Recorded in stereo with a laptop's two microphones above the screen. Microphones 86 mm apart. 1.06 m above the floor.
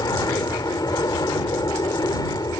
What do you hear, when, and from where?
0.0 s an aircraft: 45° left (ahead or behind); by 2.6 s 50° left (ahead or behind)